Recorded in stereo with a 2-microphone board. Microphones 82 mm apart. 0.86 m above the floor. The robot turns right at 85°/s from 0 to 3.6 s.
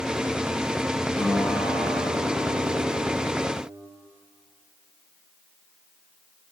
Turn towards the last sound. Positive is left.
turn(degrees=5)